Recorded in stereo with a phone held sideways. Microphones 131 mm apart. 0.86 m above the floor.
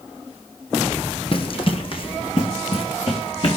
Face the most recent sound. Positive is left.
turn(degrees=45)  # may be behind; listen again after turning